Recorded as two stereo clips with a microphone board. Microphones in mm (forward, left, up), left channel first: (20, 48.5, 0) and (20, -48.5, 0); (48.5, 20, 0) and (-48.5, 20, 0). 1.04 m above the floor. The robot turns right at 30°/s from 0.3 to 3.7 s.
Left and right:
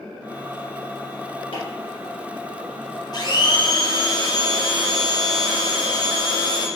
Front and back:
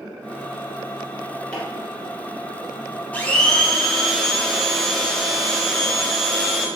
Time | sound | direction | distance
1.5 | chopping | 85° left | 2.5 m
3.1 | a blender | 70° left | 0.7 m